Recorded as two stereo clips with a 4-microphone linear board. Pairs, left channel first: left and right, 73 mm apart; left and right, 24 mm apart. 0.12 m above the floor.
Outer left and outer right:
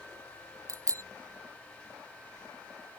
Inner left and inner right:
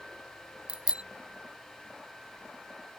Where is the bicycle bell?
45° right (ahead or behind).